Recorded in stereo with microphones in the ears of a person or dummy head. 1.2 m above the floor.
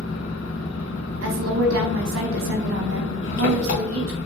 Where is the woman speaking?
90° right, 1.0 m.